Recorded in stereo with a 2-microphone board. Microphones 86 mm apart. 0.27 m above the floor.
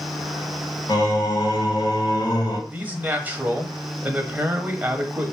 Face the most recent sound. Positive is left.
turn(degrees=-20)  # may be behind; listen again after turning